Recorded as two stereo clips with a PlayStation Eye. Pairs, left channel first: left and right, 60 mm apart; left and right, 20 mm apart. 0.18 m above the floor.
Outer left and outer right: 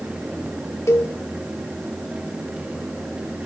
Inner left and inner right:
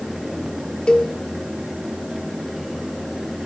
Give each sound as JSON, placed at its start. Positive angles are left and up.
{"t": 0.9, "sound": "a cowbell", "side_deg": 55, "distance_m": 3.0}